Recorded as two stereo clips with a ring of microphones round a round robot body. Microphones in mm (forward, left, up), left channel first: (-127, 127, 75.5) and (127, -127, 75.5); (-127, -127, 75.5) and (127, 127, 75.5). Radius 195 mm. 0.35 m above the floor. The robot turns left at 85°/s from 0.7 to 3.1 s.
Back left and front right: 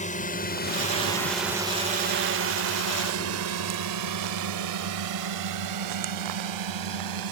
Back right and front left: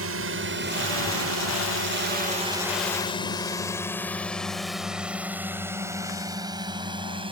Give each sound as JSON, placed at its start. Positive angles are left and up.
{"t": 0.0, "sound": "a drone", "azimuth_deg": 75}